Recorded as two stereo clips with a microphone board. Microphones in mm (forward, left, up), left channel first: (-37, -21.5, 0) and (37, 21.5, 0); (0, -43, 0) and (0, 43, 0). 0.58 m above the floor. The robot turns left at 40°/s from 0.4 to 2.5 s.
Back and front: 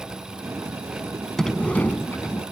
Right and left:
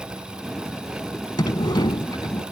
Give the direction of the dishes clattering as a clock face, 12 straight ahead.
I don't hear dishes clattering.